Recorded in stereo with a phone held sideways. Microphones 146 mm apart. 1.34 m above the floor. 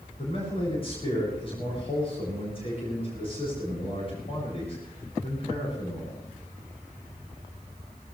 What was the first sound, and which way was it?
A man speaking, 40° left (ahead or behind).